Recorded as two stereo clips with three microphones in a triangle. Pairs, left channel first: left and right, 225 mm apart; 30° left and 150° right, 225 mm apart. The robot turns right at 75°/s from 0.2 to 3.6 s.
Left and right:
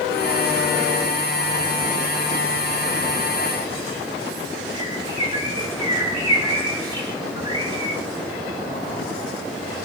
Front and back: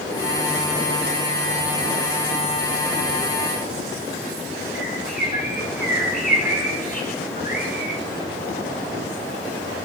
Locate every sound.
4.8 s a bird: 20° right, 5 m